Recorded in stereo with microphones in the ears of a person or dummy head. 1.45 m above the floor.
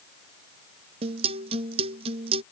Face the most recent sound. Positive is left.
turn(degrees=-35)  # may be behind; listen again after turning